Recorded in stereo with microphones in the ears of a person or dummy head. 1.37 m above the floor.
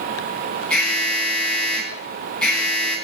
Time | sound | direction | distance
0.7 | an alarm | 5° left (ahead or behind) | 9 m